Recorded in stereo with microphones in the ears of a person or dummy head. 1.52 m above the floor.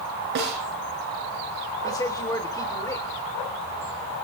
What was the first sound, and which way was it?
A snare drum, 50° right (ahead or behind).